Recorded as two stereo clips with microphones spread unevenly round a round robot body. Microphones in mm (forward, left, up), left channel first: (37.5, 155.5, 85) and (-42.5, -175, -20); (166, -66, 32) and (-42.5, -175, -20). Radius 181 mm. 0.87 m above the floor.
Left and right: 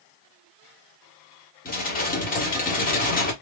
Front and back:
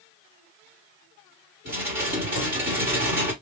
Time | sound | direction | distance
1.6 | dishes clattering | 145° left | 1.3 m